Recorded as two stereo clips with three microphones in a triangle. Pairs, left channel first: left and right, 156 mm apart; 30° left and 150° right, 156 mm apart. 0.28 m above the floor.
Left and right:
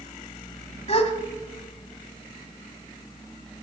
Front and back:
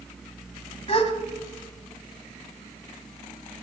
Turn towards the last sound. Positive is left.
turn(degrees=65)